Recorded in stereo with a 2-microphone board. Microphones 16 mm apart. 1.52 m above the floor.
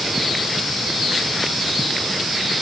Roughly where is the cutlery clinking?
No cutlery clinking in this recording.